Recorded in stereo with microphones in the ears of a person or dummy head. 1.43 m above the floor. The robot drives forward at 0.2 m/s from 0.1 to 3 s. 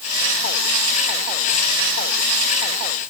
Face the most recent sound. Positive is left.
No sound to turn to.